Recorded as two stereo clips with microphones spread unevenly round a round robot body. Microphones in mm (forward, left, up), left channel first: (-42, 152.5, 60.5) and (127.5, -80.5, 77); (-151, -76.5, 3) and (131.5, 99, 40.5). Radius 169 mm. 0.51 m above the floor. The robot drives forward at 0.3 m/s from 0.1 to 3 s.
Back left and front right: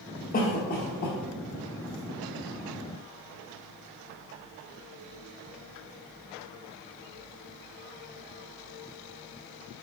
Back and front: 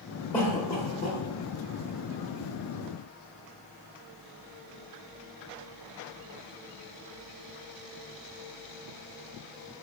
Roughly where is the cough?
Behind left.